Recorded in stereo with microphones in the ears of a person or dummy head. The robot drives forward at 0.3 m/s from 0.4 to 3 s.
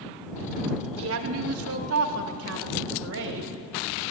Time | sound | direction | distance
1.0 | a woman speaking | 60° right (ahead or behind) | 0.8 m